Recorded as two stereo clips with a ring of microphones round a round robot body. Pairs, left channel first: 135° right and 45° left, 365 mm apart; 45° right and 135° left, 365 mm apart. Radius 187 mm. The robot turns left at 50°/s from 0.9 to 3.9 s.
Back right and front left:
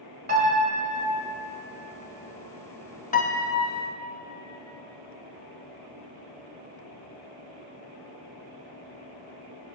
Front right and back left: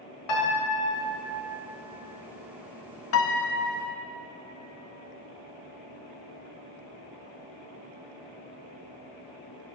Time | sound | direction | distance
0.3 | a piano | 20° right | 2.0 m
3.1 | a piano | 75° right | 0.8 m